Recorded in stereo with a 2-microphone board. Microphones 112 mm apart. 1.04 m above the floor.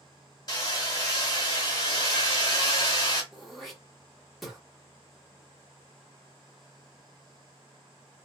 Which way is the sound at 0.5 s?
35° left (ahead or behind).